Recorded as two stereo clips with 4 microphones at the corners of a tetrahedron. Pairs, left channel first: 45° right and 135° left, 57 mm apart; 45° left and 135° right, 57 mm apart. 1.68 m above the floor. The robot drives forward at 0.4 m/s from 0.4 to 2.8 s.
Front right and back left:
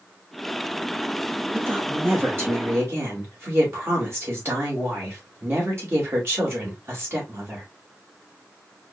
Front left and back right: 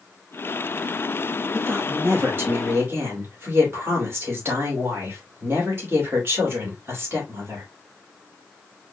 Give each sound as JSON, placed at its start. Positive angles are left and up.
{"t": 1.5, "sound": "a woman speaking", "azimuth_deg": 180, "distance_m": 2.0}